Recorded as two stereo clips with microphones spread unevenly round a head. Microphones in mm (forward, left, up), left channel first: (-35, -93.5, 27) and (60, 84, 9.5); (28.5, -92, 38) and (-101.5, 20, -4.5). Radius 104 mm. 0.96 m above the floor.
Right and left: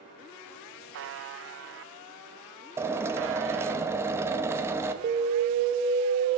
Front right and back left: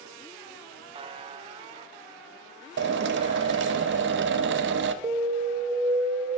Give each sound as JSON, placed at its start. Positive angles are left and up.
{"t": 0.9, "sound": "a buzzer", "azimuth_deg": 80, "distance_m": 0.5}
{"t": 2.8, "sound": "a drill", "azimuth_deg": 140, "distance_m": 0.6}
{"t": 5.0, "sound": "an alarm", "azimuth_deg": 100, "distance_m": 0.5}